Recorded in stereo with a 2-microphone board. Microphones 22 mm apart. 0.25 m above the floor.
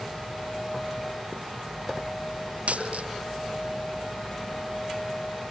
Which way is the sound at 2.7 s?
85° right.